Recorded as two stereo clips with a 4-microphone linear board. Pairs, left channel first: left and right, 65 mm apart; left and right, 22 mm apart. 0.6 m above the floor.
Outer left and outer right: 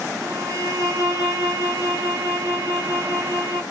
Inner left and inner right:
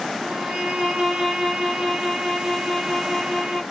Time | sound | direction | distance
0.2 | a violin | 50° right (ahead or behind) | 3 m